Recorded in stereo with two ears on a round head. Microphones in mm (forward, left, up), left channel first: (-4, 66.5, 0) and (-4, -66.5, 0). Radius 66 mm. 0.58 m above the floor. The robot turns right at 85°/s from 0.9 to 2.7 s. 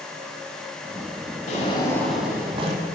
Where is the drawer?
120° left, 1.5 m; by 2.8 s 135° right, 1.5 m.